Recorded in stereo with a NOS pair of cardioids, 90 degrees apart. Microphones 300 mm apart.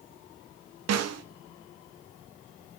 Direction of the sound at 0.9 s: 60° right.